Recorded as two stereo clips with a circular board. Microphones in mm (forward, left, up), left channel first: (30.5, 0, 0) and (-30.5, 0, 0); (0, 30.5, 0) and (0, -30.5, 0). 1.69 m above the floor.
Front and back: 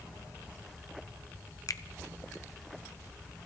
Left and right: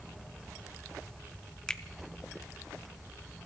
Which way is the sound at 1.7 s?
15° left.